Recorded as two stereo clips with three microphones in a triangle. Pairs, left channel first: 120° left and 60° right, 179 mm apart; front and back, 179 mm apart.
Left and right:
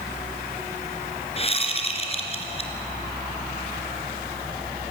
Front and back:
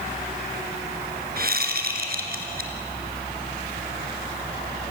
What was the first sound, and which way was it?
A whoosh, 170° left.